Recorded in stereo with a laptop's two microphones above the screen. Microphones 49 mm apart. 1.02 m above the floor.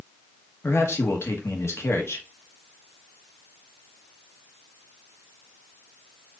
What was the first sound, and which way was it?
A man speaking, 65° left (ahead or behind).